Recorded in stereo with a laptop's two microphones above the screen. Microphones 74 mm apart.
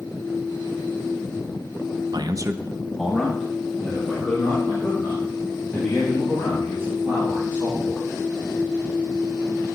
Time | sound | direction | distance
2.1 | a man speaking | 60° right (ahead or behind) | 0.5 m